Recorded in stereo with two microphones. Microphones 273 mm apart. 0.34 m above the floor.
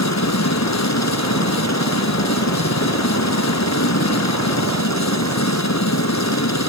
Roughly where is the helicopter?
Left.